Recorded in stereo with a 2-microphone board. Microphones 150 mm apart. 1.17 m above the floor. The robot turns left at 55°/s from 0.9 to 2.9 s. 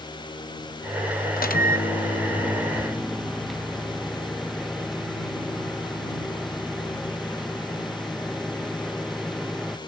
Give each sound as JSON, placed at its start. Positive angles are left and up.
{"t": 1.4, "sound": "a microwave", "azimuth_deg": 85}